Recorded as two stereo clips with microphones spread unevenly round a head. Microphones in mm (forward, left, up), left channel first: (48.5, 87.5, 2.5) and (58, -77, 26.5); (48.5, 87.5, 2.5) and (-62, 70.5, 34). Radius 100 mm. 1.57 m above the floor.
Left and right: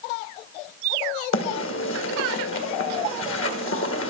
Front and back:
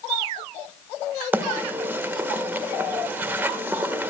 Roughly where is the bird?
Behind left.